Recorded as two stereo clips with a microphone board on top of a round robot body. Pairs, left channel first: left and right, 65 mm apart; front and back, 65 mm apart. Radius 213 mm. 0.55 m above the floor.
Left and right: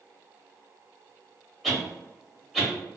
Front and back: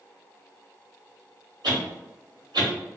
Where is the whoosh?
175° right, 1.0 m.